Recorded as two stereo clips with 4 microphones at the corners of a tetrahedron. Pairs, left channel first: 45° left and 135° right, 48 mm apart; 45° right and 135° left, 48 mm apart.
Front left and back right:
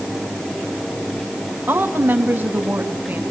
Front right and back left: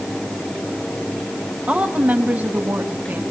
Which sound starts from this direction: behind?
A woman speaking, at 1.7 s.